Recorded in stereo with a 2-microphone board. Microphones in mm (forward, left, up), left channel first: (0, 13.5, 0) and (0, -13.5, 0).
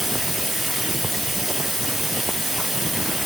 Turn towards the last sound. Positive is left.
turn(degrees=-5)  # may be behind; listen again after turning